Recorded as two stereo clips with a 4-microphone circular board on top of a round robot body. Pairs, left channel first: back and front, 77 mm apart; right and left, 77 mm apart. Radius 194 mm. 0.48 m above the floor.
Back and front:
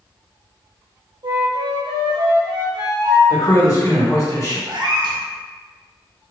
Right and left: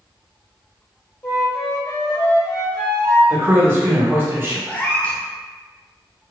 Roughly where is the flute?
Ahead.